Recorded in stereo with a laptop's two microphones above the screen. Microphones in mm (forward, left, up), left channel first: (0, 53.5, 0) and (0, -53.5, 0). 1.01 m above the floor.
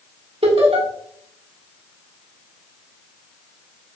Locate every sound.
0.4 s laughter: 70° right (ahead or behind), 1.8 m